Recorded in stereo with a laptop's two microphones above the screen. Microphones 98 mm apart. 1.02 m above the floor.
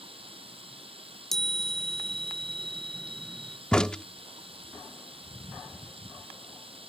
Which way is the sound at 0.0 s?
60° right (ahead or behind).